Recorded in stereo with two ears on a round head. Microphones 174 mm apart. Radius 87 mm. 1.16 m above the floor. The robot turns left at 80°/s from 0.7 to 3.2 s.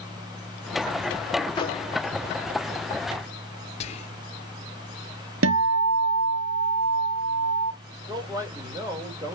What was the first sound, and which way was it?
A microwave, 20° left (ahead or behind).